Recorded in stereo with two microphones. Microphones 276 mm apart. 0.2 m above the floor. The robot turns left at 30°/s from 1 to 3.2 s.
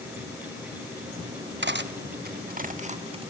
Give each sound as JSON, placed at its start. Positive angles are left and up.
{"t": 1.6, "sound": "cutlery clinking", "side_deg": -40, "distance_m": 1.0}